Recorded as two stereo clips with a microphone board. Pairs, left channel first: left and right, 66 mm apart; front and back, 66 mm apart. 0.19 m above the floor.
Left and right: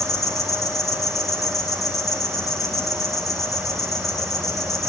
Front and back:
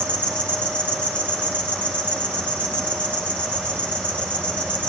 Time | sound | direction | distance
0.0 | an insect | 70° left | 3.5 m